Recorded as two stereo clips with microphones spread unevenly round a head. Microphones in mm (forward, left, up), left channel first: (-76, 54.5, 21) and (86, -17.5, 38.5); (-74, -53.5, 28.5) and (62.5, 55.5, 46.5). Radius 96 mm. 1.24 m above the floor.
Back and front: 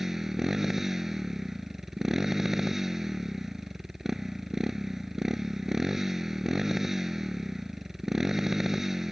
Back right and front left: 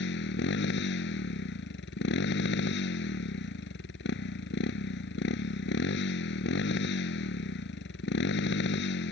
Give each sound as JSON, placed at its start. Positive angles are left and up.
{"t": 0.0, "sound": "a motorcycle", "azimuth_deg": -110}